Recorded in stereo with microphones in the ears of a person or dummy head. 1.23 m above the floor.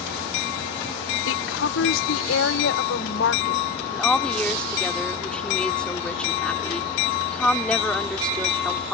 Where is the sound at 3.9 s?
10° left (ahead or behind).